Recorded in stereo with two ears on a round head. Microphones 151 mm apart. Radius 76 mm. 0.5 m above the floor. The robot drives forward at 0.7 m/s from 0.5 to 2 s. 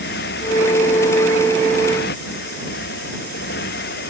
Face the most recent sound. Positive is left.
turn(degrees=65)  # may be behind; listen again after turning